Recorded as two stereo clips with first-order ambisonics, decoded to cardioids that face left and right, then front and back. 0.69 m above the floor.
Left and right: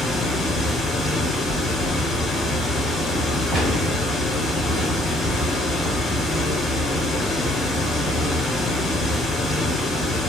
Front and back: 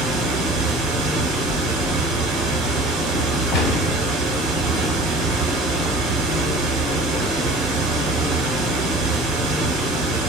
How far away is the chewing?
About 1.0 m.